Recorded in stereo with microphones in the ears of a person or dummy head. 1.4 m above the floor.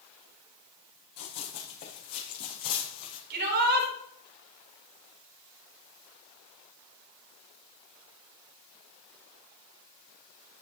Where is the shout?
50° right (ahead or behind), 7 m.